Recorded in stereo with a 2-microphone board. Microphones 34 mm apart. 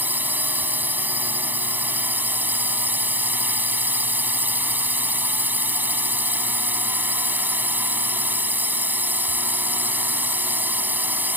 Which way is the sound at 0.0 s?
70° right (ahead or behind).